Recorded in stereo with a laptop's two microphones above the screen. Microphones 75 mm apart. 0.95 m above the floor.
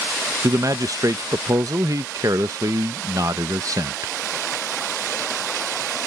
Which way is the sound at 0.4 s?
50° right (ahead or behind).